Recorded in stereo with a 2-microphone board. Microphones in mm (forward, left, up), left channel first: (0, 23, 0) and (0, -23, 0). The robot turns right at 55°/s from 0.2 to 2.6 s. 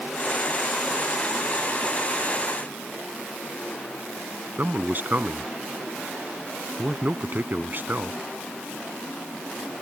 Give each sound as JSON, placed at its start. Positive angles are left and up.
{"t": 4.6, "sound": "a man speaking", "side_deg": -45}